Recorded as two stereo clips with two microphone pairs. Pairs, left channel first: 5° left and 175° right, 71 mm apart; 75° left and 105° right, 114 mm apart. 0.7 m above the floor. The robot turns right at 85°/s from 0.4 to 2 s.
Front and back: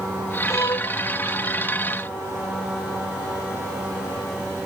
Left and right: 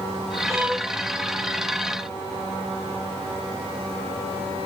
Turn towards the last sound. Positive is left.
turn(degrees=90)